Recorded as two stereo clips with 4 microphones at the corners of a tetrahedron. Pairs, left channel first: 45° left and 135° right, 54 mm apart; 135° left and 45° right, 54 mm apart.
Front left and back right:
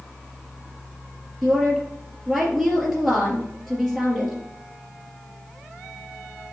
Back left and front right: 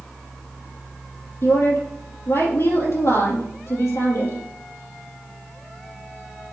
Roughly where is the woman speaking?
Behind left.